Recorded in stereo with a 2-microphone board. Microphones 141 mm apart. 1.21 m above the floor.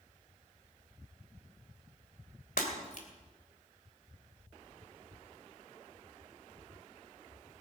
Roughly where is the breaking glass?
Left.